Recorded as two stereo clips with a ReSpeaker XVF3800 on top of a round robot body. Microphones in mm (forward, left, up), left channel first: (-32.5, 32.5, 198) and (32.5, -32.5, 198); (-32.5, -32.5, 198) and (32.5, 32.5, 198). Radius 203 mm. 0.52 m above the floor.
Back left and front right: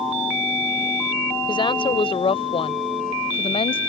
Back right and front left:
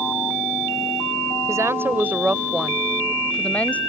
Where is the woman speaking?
105° left; by 3.8 s 155° left.